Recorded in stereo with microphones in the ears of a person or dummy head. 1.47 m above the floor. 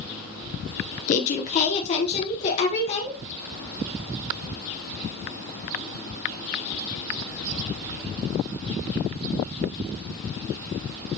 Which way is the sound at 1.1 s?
40° left (ahead or behind).